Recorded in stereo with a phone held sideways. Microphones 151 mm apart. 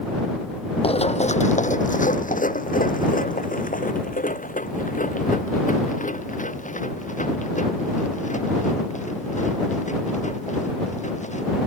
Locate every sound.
0.8 s running footsteps: 45° left (ahead or behind); by 11.5 s 60° left (ahead or behind)